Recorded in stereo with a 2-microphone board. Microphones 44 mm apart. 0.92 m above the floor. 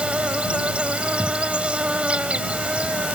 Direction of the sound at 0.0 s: 25° right (ahead or behind).